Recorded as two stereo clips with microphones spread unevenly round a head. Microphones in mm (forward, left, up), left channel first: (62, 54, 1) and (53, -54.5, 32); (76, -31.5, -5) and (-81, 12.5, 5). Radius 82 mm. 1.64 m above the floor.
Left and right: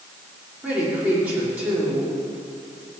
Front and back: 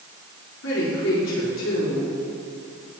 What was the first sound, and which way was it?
A woman speaking, 20° right.